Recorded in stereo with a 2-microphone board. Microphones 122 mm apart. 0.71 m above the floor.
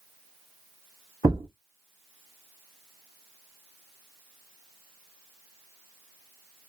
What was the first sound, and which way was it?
A thud, 25° right (ahead or behind).